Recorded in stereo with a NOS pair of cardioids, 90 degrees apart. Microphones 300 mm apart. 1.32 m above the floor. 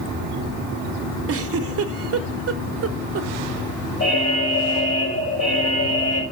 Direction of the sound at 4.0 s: 55° left.